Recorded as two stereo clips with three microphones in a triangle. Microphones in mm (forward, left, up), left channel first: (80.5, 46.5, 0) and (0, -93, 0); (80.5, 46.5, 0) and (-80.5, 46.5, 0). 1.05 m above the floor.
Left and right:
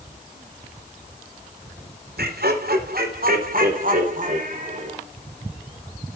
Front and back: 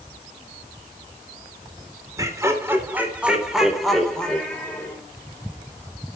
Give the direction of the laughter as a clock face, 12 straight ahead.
4 o'clock.